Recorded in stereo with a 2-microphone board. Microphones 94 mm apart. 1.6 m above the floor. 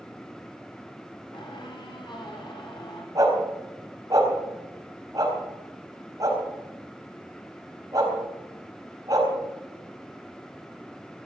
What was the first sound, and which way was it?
A squeak, 65° left (ahead or behind).